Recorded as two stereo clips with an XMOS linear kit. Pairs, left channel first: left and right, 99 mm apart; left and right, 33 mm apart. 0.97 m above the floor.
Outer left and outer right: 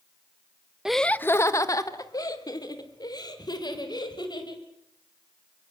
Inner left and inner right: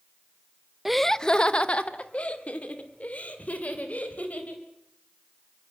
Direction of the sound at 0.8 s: 5° right (ahead or behind).